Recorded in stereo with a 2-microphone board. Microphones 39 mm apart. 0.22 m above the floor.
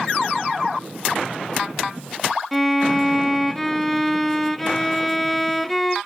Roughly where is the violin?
Centre.